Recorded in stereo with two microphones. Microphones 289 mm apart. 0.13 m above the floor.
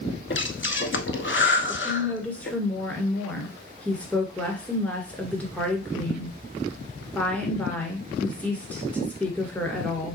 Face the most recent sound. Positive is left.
turn(degrees=5)  # may be behind; listen again after turning